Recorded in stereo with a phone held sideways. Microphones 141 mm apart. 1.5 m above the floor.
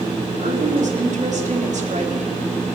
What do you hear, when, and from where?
0.4 s a woman speaking: 65° right (ahead or behind), 4 m